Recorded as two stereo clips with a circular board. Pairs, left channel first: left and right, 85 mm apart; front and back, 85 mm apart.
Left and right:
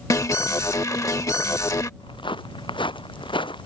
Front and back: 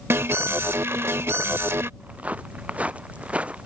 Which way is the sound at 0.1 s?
130° left.